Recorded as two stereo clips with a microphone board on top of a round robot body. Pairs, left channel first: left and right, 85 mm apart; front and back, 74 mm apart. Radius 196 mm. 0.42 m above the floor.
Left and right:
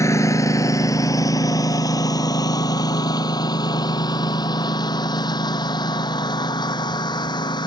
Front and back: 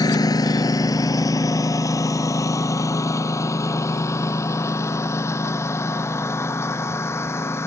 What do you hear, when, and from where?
0.0 s a lawn mower: 35° left; by 7.7 s 55° left